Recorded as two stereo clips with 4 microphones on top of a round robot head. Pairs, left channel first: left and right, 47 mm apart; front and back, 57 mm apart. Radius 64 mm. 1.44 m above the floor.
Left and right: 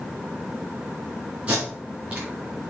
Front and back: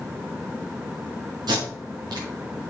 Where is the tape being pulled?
165° right, 3.5 m.